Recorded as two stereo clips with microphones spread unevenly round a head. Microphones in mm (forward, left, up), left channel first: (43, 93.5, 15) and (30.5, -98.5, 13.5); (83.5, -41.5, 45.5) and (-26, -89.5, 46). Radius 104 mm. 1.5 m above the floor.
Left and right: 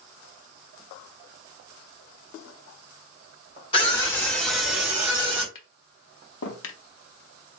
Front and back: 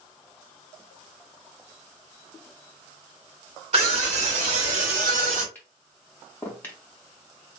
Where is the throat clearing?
No throat clearing in this recording.